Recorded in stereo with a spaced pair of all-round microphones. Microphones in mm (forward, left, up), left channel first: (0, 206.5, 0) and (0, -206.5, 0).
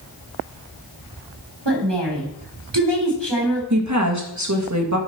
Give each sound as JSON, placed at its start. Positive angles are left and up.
{"t": 1.6, "sound": "a woman speaking", "side_deg": -80, "distance_m": 3.5}
{"t": 3.7, "sound": "a woman speaking", "side_deg": -45, "distance_m": 1.9}